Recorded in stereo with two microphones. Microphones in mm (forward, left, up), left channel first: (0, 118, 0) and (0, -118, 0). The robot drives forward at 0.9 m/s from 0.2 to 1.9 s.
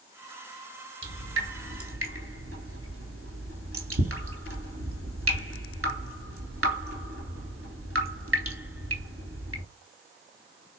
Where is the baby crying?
I don't hear a baby crying.